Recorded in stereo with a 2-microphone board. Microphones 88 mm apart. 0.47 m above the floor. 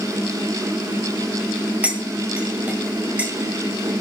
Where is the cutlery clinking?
15° right (ahead or behind), 1.5 m.